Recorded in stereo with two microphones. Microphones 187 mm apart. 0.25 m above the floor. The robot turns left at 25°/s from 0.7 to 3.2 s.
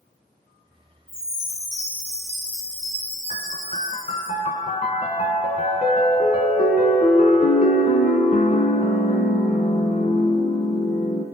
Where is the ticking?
I don't hear ticking.